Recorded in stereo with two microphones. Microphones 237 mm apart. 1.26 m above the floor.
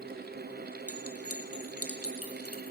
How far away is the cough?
I don't hear a cough.